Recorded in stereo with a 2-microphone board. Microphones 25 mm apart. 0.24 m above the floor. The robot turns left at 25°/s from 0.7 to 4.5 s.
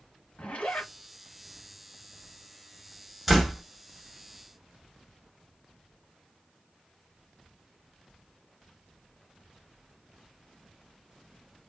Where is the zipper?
55° left (ahead or behind), 1.9 m.